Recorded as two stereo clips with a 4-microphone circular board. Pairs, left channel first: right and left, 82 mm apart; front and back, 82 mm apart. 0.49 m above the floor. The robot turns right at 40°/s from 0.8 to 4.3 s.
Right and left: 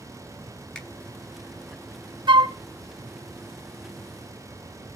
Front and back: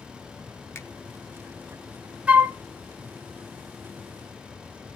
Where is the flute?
105° left, 0.5 m; by 2.5 s 115° left, 0.5 m.